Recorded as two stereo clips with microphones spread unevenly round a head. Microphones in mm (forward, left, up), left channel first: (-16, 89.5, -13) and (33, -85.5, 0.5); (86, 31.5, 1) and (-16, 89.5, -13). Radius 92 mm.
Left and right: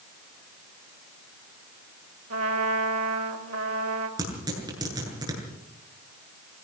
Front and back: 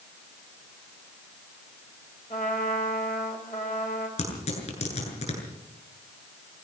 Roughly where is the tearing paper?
Ahead.